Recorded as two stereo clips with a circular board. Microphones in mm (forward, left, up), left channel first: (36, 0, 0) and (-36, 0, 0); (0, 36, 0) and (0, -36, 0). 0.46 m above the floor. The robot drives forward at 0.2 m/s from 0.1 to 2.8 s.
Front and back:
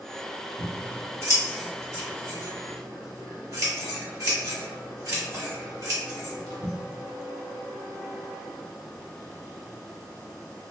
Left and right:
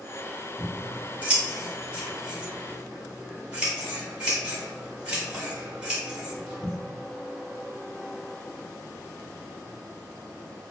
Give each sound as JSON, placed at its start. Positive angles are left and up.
{"t": 0.6, "sound": "scissors", "azimuth_deg": -150, "distance_m": 1.1}